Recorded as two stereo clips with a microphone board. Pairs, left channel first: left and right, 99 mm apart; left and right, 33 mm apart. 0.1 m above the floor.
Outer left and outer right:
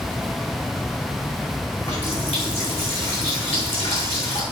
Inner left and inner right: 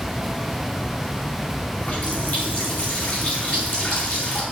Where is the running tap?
75° left (ahead or behind), 5 m.